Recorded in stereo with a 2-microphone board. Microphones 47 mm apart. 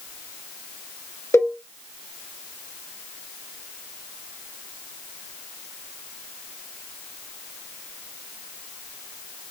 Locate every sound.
1.3 s a cowbell: 80° left, 2 m